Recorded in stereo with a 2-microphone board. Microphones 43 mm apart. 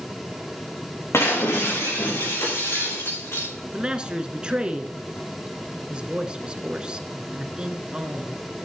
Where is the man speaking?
20° right (ahead or behind), 1.6 m.